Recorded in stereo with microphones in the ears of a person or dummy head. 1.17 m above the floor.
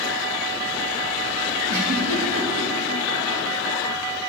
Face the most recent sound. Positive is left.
turn(degrees=-80)